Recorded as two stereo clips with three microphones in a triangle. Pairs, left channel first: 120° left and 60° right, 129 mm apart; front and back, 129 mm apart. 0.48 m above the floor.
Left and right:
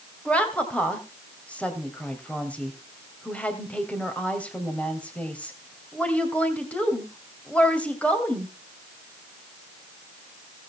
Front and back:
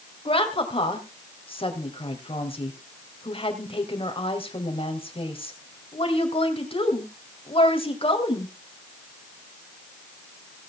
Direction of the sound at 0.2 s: 40° left.